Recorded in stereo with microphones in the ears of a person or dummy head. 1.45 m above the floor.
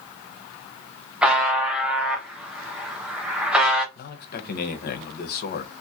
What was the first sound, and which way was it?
A buzzer, centre (ahead or behind).